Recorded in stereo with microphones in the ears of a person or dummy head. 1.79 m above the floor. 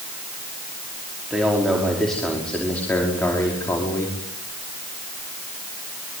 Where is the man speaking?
5° right (ahead or behind), 5 m; by 4.2 s 15° left (ahead or behind), 5.5 m.